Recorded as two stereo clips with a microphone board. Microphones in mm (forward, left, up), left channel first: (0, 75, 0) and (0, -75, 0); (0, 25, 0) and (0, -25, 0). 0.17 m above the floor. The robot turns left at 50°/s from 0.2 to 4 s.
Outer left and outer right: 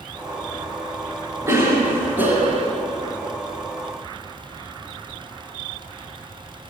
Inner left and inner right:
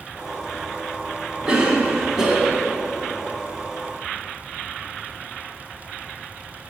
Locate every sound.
1.5 s a cough: 20° right (ahead or behind), 1.2 m; by 2.7 s 5° right (ahead or behind), 1.2 m